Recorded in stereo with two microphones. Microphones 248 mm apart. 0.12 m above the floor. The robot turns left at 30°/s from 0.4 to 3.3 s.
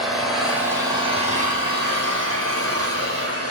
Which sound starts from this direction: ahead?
An engine running, at 0.0 s.